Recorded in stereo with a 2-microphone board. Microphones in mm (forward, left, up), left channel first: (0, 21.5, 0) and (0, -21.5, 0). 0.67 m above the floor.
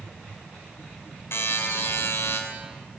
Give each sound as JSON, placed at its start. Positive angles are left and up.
{"t": 1.3, "sound": "a buzzer", "side_deg": 65, "distance_m": 3.0}